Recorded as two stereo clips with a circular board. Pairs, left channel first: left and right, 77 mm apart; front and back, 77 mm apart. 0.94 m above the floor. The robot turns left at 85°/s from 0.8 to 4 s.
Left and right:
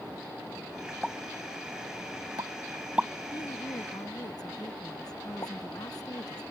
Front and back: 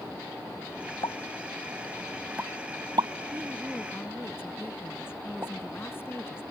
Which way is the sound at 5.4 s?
125° left.